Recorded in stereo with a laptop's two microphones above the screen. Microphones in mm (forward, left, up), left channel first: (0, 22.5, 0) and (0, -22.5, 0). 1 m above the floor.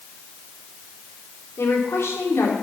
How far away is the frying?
I don't hear frying.